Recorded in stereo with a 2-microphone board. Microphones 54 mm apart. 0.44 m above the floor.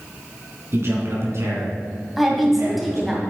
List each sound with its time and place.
0.7 s a man speaking: 50° right (ahead or behind), 3.5 m; by 3.2 s 75° right (ahead or behind), 5 m
2.2 s a woman speaking: centre (ahead or behind), 2.5 m